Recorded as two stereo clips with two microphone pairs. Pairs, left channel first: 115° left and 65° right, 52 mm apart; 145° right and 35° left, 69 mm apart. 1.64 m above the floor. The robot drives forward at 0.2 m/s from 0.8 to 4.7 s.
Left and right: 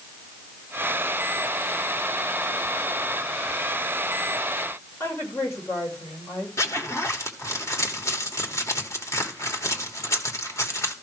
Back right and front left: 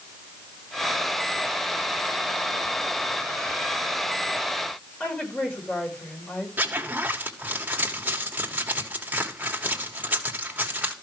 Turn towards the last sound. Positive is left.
turn(degrees=100)